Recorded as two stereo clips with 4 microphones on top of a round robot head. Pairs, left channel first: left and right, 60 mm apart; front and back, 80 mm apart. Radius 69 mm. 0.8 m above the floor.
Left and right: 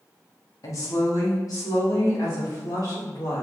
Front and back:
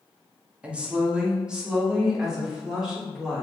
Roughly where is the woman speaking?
Left.